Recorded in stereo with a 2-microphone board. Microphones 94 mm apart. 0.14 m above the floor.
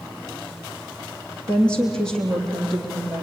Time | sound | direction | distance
1.5 | a woman speaking | 10° left (ahead or behind) | 5 m